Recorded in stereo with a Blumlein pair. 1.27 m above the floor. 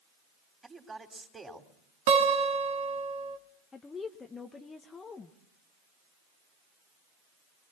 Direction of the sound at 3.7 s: 15° left.